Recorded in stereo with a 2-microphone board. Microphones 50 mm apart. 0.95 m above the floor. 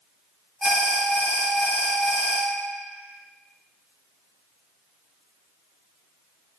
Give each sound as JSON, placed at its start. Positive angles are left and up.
{"t": 0.6, "sound": "an alarm", "side_deg": 0, "distance_m": 1.0}